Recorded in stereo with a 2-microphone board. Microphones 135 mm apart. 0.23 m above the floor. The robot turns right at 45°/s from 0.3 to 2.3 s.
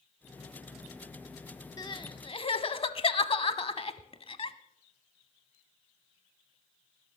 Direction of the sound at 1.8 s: 30° left (ahead or behind).